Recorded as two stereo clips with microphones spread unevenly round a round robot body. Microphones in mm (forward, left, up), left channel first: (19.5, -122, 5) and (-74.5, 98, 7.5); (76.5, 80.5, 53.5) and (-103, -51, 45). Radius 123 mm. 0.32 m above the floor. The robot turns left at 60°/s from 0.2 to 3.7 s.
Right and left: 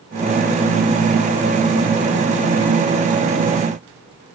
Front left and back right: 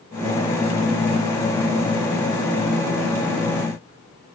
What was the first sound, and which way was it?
Only background noise.